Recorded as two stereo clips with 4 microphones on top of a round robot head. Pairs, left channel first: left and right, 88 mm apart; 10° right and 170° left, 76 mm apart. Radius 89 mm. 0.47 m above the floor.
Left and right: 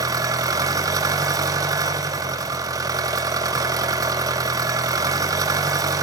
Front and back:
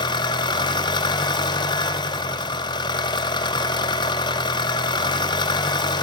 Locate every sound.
0.0 s an engine running: 35° right, 1.5 m